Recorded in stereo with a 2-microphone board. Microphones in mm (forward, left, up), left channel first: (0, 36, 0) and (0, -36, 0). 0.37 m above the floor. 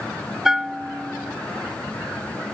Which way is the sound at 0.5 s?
5° right (ahead or behind).